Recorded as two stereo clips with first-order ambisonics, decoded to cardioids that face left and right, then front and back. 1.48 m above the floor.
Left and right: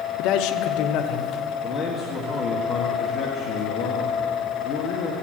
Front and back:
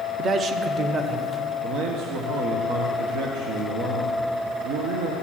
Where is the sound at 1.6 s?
155° left, 1.3 m.